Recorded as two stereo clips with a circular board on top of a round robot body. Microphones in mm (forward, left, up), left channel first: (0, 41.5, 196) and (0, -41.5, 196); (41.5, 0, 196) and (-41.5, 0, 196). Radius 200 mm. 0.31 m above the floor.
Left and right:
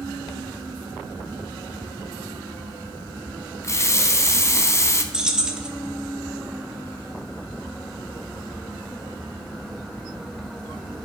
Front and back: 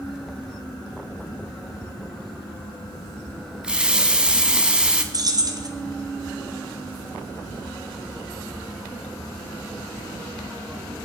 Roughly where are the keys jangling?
Behind.